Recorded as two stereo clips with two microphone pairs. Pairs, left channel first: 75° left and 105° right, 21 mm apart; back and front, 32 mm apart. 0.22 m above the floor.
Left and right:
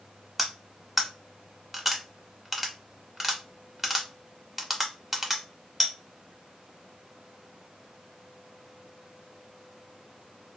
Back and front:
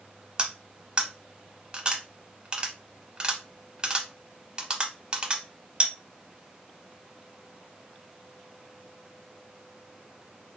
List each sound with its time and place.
0.4 s cutlery clinking: 30° right, 0.6 m